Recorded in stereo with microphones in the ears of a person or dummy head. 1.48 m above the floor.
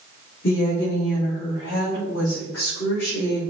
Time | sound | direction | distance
0.4 | a woman speaking | 70° left (ahead or behind) | 3.5 m